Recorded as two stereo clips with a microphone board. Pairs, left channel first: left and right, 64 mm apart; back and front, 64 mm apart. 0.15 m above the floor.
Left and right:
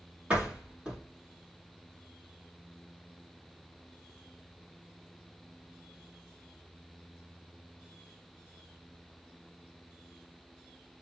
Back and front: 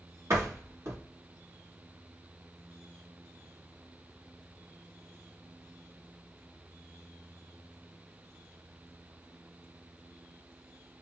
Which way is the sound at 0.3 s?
20° right.